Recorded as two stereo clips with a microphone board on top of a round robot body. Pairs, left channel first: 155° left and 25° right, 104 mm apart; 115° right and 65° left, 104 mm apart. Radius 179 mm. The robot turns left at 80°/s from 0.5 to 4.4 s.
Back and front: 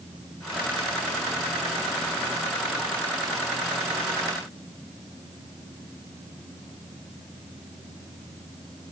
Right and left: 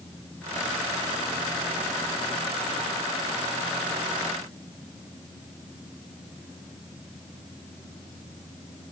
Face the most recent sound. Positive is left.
No sound to turn to.